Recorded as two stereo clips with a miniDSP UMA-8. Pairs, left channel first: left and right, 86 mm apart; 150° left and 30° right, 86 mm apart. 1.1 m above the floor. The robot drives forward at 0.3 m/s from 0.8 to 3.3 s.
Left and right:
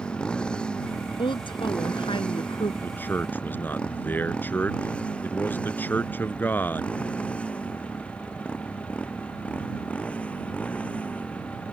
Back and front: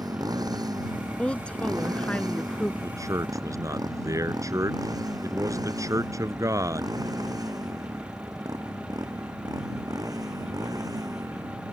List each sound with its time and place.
0.0 s a motorcycle: 10° left; by 11.7 s 15° left
1.2 s a woman speaking: 75° left
2.8 s a man speaking: 20° left